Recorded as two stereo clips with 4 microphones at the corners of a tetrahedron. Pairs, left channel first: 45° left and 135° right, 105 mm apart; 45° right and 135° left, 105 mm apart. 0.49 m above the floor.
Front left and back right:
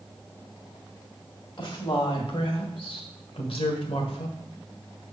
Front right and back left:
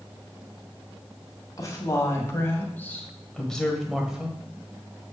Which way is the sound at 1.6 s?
10° left.